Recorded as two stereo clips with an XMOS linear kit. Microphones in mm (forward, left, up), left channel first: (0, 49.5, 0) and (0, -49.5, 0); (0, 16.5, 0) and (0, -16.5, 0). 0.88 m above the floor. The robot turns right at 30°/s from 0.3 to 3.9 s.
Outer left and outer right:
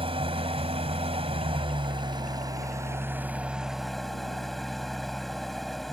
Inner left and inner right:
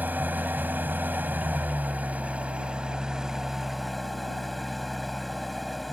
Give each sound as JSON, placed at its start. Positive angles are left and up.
{"t": 0.0, "sound": "an engine running", "azimuth_deg": -105}